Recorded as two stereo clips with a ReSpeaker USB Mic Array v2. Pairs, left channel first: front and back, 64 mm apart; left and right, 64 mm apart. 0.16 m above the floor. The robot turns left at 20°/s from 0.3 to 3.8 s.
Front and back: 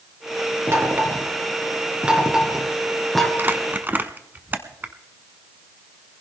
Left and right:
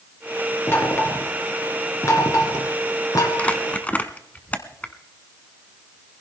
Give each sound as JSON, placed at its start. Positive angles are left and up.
{"t": 0.7, "sound": "knocking", "azimuth_deg": 135, "distance_m": 2.0}
{"t": 3.4, "sound": "crumpling", "azimuth_deg": 150, "distance_m": 0.9}